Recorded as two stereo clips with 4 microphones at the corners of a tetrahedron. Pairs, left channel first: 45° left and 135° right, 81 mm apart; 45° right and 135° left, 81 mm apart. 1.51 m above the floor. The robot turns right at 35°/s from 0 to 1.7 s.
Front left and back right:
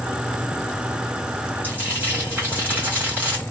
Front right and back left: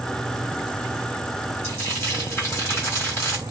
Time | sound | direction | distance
1.6 | frying | 85° right | 1.6 m